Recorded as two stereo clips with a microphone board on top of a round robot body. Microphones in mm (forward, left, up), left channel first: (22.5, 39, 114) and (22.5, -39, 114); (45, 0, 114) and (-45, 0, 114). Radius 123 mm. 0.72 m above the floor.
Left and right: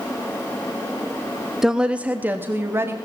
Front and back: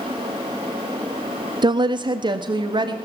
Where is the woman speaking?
175° right, 0.8 m; by 3.0 s 145° right, 1.5 m.